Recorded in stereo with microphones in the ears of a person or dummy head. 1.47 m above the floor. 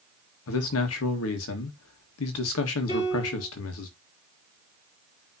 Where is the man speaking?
80° left, 1.8 m.